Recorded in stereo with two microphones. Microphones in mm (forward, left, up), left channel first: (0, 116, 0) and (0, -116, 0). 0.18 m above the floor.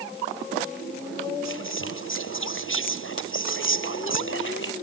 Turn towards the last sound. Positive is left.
turn(degrees=60)  # may be behind; listen again after turning